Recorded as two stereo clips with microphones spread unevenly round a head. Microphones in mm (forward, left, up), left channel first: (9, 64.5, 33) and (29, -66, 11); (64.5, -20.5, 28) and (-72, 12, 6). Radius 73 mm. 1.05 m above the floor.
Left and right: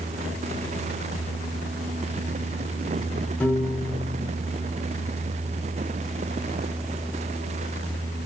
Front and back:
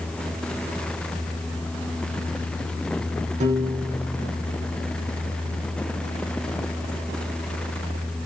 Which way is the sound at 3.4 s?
Straight behind.